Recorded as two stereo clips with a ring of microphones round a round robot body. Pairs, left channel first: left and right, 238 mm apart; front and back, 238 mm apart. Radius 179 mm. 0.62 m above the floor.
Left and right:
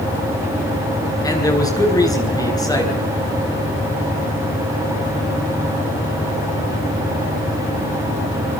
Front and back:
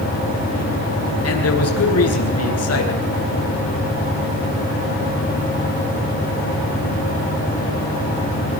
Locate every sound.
1.2 s a man speaking: 15° left, 9.5 m